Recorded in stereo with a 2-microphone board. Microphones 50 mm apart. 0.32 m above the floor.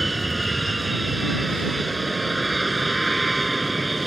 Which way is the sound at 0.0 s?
Centre (ahead or behind).